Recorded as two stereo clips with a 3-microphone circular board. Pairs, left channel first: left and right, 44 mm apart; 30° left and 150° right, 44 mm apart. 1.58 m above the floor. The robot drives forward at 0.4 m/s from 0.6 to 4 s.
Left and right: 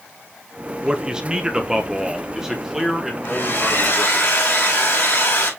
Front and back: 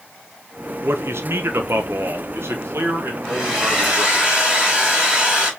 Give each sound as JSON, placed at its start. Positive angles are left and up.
{"t": 0.8, "sound": "a man speaking", "azimuth_deg": -160, "distance_m": 0.7}
{"t": 3.2, "sound": "a hair dryer", "azimuth_deg": 130, "distance_m": 5.0}